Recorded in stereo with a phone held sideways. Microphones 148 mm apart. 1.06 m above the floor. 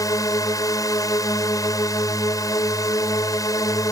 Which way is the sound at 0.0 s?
25° left (ahead or behind).